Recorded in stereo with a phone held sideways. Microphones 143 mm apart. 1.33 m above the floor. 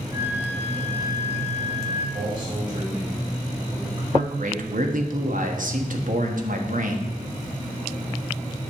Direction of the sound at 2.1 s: 40° right (ahead or behind).